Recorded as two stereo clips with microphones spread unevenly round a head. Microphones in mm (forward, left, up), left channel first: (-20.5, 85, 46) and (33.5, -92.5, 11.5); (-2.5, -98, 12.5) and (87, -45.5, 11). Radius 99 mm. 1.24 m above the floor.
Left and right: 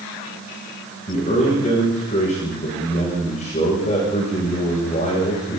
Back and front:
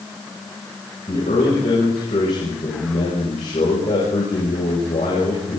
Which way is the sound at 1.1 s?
160° left.